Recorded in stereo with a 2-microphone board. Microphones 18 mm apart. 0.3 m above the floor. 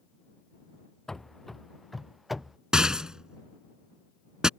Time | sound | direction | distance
1.1 | running footsteps | 25° left (ahead or behind) | ?
2.7 | a rattle | 40° right (ahead or behind) | ?